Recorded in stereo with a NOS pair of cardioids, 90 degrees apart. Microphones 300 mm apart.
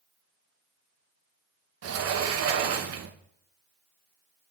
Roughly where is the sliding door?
Ahead right.